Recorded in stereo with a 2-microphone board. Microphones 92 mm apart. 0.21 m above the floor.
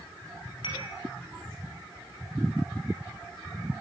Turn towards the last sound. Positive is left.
turn(degrees=65)  # may be behind; listen again after turning